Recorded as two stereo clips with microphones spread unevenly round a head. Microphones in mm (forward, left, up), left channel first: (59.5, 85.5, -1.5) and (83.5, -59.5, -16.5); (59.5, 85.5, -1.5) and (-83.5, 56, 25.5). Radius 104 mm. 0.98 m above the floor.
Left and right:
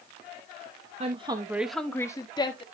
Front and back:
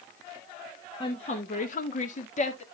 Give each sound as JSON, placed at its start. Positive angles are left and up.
{"t": 1.0, "sound": "a woman speaking", "azimuth_deg": -45, "distance_m": 1.1}